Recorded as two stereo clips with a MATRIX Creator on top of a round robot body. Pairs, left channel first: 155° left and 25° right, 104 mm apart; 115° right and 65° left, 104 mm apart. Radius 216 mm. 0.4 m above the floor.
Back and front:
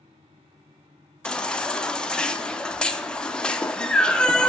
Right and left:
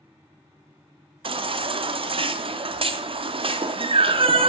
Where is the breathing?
I don't hear breathing.